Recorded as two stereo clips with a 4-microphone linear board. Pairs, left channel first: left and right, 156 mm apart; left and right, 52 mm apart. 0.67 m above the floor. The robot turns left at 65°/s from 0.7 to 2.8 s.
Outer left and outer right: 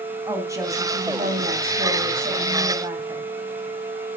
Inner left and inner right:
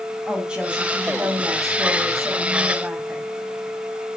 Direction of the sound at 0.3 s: 20° right.